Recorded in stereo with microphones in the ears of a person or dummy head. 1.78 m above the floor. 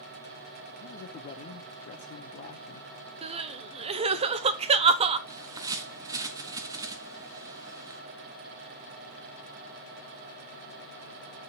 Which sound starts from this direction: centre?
A bird, at 5.3 s.